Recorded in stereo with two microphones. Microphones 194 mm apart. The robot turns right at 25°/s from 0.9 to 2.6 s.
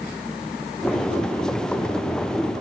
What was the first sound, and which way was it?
Only background noise.